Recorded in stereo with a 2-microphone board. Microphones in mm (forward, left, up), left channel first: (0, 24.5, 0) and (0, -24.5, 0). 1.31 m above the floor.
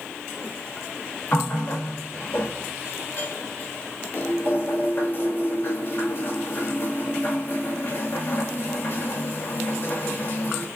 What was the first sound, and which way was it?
A running tap, 40° left (ahead or behind).